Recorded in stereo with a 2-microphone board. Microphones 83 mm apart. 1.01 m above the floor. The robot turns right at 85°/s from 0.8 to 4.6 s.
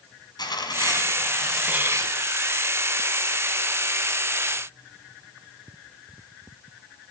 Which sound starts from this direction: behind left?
Tearing paper, at 0.4 s.